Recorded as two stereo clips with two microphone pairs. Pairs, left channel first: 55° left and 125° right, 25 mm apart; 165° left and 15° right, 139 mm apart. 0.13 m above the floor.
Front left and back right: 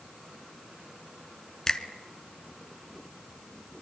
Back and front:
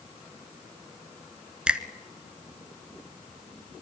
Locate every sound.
1.7 s a finger snap: 60° left, 1.2 m